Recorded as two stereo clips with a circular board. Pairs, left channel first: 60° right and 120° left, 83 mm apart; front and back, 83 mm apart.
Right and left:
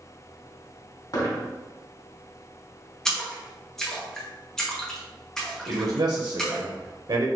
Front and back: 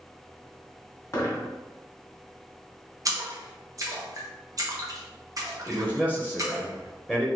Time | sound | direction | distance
1.1 | a dropped coin | 45° right | 2.0 m
3.0 | a splash | 145° right | 1.0 m
5.7 | a man speaking | 105° left | 0.8 m